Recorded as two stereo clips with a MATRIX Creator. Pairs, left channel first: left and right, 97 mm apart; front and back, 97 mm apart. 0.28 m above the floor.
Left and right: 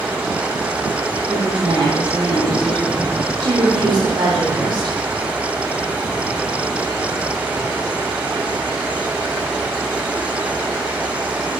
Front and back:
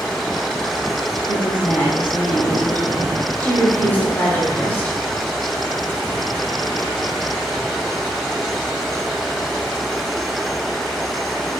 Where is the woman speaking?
70° right, 2 m.